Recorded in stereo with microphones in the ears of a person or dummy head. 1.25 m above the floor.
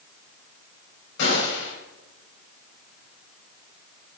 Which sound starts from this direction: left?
A gunshot, at 1.2 s.